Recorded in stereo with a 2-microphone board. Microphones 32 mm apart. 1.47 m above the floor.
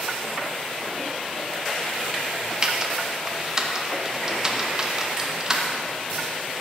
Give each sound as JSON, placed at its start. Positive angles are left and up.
{"t": 2.6, "sound": "typing on a keyboard", "side_deg": -20, "distance_m": 0.6}